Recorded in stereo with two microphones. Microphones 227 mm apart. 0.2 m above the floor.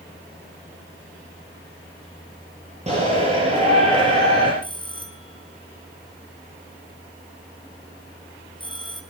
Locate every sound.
2.9 s a shout: 30° right (ahead or behind), 5.5 m
4.6 s a bell: 20° left (ahead or behind), 2.5 m